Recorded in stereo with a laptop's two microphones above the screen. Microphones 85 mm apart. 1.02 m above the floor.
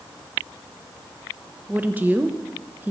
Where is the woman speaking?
20° right (ahead or behind), 0.6 m.